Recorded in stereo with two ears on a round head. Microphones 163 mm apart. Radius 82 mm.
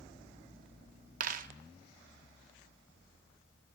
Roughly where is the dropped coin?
Right.